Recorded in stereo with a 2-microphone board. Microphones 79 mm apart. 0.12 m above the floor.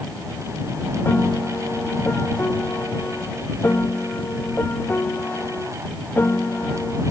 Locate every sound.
1.1 s a piano: 30° left (ahead or behind)